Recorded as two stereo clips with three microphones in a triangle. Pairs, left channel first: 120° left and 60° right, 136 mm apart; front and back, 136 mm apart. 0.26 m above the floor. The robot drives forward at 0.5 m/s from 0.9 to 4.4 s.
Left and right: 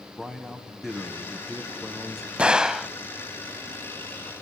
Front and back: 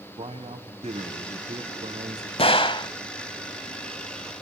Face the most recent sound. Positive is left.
turn(degrees=130)